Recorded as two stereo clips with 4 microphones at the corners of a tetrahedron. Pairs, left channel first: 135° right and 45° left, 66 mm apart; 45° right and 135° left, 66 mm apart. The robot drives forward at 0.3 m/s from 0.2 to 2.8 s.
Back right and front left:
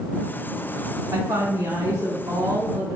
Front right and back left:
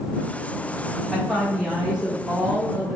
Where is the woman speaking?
45° left, 1.6 m; by 3.0 s 60° left, 1.3 m.